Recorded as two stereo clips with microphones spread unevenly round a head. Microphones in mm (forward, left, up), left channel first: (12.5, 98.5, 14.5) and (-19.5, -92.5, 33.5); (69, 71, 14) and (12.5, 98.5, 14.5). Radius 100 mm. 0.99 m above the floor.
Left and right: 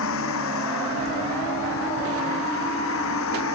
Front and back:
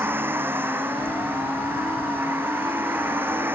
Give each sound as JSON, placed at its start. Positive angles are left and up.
{"t": 0.0, "sound": "a vehicle", "azimuth_deg": 100}